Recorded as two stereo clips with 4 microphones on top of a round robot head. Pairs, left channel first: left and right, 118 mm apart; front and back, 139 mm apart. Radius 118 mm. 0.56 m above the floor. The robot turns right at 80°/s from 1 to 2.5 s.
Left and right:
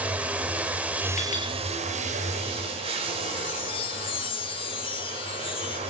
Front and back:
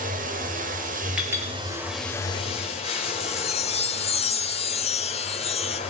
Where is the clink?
95° left, 7.5 m; by 1.5 s 120° left, 7.5 m.